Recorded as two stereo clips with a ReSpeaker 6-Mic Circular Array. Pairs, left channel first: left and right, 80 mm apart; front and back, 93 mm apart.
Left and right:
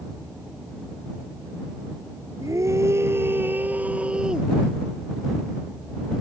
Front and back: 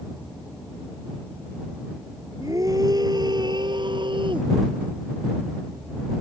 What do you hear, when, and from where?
2.4 s a scream: 135° right; by 4.5 s 170° right